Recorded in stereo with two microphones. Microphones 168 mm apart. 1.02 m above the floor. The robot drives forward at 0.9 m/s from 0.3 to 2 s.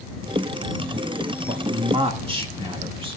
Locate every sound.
1.5 s a man speaking: 40° right (ahead or behind), 1.6 m; by 3.2 s 30° right (ahead or behind), 2 m